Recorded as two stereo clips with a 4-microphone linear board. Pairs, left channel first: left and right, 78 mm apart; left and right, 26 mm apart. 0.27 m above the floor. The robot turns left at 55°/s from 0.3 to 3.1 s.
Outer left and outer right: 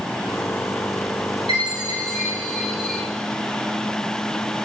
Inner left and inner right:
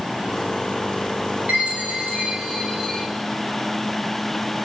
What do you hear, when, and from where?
1.5 s a chime: 105° right, 5 m; by 3.0 s 170° left, 5 m